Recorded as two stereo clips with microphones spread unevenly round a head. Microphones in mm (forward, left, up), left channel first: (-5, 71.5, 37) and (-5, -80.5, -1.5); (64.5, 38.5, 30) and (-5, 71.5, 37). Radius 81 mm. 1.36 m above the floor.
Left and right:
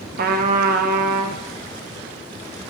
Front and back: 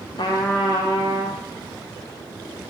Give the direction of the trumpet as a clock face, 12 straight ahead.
2 o'clock.